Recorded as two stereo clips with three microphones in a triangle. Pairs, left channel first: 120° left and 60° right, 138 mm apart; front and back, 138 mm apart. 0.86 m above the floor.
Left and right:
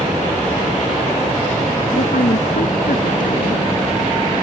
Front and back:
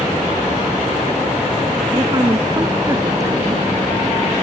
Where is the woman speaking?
115° left.